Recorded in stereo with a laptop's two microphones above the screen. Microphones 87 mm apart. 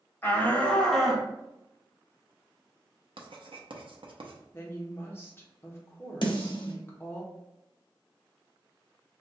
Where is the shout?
25° left (ahead or behind), 1.1 m; by 1.3 s 10° right (ahead or behind), 0.8 m.